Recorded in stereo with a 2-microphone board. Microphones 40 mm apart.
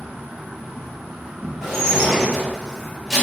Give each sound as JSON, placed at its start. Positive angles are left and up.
{"t": 0.0, "sound": "an insect", "side_deg": -5, "distance_m": 1.7}
{"t": 1.6, "sound": "dishes clattering", "side_deg": -5, "distance_m": 1.8}